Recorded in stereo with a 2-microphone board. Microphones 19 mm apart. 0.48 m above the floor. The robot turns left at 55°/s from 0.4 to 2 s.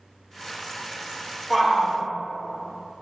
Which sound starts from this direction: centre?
A shout, at 1.5 s.